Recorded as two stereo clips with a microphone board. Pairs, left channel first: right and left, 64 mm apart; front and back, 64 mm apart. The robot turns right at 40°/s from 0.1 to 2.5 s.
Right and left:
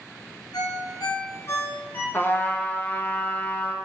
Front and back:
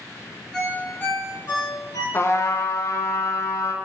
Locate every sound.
0.5 s a ringtone: 90° right, 3 m; by 2.0 s 30° right, 3 m
2.1 s a trumpet: 40° right, 0.8 m; by 3.8 s 25° right, 0.8 m